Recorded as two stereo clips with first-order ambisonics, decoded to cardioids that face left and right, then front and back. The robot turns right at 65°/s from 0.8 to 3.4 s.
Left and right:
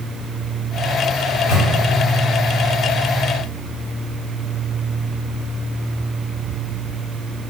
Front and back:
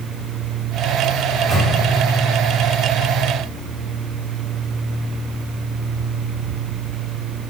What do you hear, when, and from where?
1.3 s a microwave: 95° left, 1.6 m; by 1.7 s 125° left, 1.6 m